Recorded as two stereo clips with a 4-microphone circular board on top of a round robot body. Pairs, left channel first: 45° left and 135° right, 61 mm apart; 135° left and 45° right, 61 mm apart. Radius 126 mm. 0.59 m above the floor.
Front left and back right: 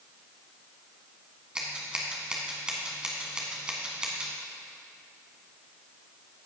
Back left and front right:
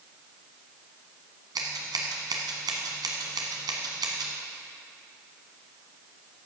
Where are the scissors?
60° right, 1.3 m.